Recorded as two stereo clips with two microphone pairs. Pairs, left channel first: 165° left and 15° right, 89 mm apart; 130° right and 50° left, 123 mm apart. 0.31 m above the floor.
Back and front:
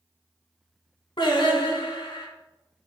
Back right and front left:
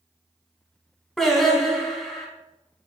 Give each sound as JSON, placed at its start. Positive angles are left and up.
{"t": 1.2, "sound": "singing", "azimuth_deg": 145, "distance_m": 1.0}